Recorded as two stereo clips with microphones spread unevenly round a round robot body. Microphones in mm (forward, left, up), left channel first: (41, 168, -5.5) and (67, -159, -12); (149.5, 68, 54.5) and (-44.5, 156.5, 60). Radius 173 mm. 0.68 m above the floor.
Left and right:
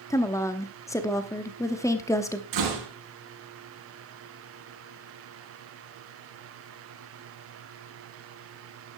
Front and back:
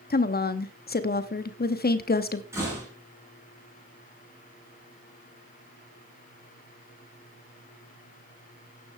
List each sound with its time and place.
0.1 s a woman speaking: 15° left, 0.9 m
2.5 s a door slam: 125° right, 4.5 m